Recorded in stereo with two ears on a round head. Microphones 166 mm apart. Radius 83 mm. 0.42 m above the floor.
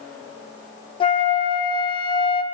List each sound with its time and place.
1.0 s a flute: 30° left (ahead or behind), 0.5 m